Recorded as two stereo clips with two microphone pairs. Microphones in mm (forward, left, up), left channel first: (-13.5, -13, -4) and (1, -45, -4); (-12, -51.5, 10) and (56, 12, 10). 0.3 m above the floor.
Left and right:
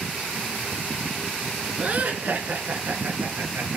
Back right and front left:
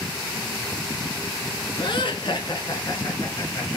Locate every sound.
1.8 s laughter: 115° right, 3 m; by 3.8 s 85° right, 3.5 m